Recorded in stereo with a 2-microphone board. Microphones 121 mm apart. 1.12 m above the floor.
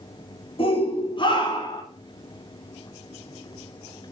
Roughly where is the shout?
Left.